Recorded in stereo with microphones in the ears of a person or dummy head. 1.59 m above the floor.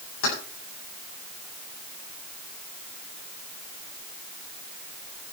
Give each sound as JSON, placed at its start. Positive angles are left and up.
{"t": 0.2, "sound": "keys jangling", "side_deg": 80, "distance_m": 9.5}